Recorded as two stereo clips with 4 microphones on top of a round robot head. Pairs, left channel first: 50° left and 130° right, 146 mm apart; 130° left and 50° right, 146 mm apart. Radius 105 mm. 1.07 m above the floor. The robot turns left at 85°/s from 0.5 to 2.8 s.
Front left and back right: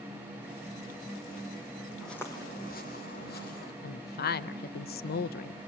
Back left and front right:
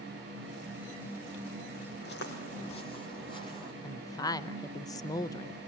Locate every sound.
2.0 s footsteps: 140° left, 3 m; by 3.7 s 70° left, 2.5 m
3.8 s a woman speaking: 65° left, 0.6 m